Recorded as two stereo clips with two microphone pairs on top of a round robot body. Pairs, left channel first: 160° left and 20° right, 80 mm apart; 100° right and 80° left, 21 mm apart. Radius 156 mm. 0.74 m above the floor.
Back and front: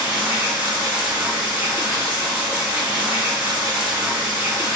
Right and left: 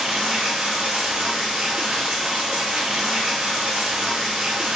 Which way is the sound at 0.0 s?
50° left.